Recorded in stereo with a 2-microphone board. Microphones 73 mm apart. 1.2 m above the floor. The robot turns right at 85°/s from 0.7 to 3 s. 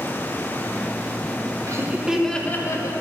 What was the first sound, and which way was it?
Laughter, 45° right.